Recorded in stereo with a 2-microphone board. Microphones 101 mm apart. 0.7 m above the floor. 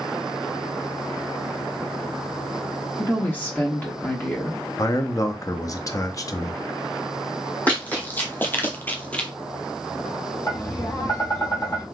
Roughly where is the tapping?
Left.